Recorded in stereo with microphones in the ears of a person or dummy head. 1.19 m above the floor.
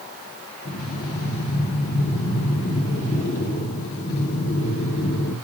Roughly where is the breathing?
Left.